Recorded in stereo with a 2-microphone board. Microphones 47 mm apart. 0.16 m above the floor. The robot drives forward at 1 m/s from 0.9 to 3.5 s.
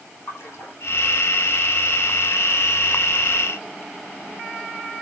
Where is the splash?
55° left (ahead or behind), 8 m.